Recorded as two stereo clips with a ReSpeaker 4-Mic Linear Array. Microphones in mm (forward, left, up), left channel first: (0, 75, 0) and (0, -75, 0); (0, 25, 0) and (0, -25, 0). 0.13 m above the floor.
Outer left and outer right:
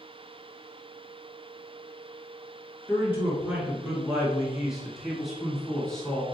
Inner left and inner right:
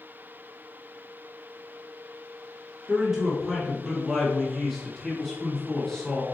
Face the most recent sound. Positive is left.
turn(degrees=5)  # may be behind; listen again after turning